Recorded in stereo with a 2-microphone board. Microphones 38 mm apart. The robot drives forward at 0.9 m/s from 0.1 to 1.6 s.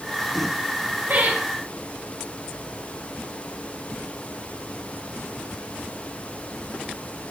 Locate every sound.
1.1 s laughter: 60° right (ahead or behind), 2 m; by 1.4 s 55° right (ahead or behind), 2 m